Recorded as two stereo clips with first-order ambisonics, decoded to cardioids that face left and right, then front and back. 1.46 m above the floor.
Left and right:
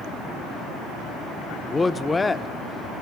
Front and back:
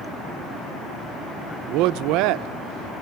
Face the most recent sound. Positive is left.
turn(degrees=170)